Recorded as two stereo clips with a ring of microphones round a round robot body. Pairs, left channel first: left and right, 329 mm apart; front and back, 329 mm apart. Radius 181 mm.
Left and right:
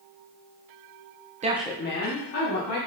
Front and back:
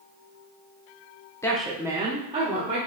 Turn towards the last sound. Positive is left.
turn(degrees=110)